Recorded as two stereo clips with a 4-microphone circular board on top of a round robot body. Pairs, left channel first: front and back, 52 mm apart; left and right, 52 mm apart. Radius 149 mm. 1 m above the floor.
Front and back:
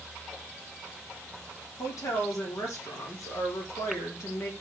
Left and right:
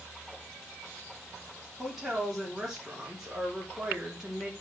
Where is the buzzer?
No buzzer in this recording.